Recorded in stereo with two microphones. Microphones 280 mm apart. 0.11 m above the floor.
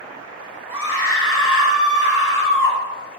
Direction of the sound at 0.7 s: 50° left (ahead or behind).